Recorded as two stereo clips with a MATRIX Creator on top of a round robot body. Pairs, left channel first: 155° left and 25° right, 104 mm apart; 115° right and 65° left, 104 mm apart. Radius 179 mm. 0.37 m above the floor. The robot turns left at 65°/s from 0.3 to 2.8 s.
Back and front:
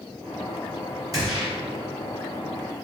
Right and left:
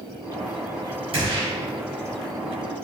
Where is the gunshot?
35° left, 1.6 m; by 1.5 s 15° left, 1.6 m.